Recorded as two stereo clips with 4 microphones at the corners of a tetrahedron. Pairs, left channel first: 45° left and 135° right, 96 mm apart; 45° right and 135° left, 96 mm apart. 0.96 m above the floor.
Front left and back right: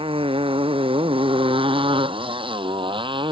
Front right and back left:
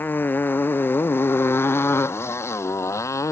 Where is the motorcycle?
115° right; by 3.3 s 105° right.